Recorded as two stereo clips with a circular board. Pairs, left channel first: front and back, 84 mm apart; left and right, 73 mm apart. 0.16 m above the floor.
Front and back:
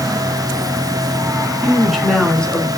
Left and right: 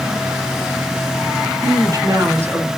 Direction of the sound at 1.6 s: 90° right.